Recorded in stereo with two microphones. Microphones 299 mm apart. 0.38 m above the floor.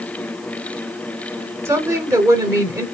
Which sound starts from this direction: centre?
A woman speaking, at 1.6 s.